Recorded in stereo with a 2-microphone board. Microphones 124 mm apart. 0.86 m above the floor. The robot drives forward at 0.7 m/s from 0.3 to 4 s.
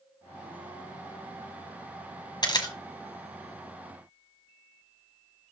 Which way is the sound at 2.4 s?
35° left (ahead or behind).